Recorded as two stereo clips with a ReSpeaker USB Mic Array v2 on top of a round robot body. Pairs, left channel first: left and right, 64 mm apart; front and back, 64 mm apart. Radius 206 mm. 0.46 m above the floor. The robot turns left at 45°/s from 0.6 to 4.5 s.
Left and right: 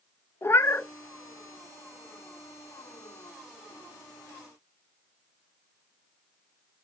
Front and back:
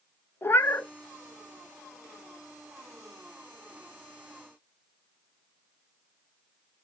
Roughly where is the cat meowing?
Ahead left.